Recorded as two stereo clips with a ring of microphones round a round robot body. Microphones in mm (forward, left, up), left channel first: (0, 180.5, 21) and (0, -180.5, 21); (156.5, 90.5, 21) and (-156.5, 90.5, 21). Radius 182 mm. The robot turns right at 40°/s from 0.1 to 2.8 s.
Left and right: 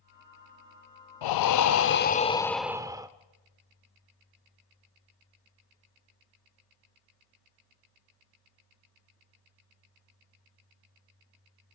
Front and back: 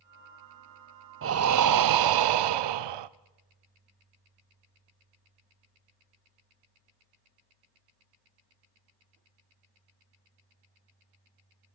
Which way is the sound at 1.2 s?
125° left.